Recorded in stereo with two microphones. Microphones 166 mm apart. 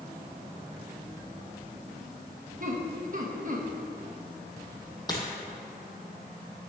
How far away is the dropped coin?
About 1.8 m.